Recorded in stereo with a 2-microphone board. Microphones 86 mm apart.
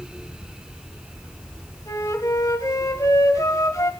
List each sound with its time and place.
1.9 s a flute: 40° left (ahead or behind), 1.8 m